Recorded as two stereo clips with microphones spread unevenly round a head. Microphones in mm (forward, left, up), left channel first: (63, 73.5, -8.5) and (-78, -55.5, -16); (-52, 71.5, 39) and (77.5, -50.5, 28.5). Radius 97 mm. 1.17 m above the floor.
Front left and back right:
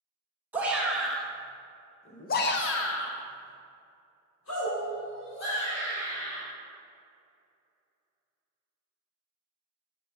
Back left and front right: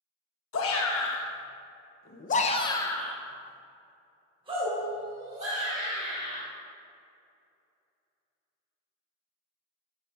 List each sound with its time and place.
0.5 s a shout: 140° left, 1.4 m; by 6.4 s 5° left, 2.5 m